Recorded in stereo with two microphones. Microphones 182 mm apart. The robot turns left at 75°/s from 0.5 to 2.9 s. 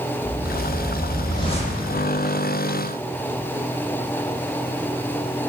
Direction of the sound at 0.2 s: 135° right.